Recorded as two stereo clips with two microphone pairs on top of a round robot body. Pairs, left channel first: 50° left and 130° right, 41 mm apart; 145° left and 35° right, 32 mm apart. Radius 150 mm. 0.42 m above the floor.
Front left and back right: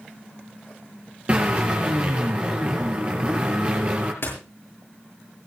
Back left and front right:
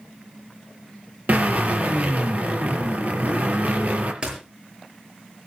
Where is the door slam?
20° left, 8.5 m.